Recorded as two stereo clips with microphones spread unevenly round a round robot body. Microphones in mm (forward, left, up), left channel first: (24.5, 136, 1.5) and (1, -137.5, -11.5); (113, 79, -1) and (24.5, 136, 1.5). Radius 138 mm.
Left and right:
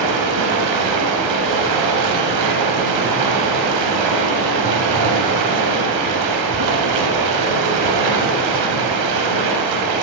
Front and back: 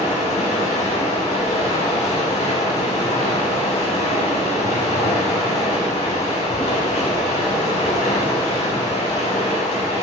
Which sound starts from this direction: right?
Running water, at 0.0 s.